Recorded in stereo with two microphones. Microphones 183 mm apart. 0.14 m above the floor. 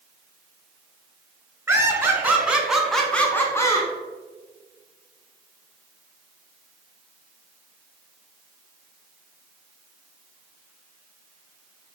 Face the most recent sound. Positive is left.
turn(degrees=20)  # may be behind; listen again after turning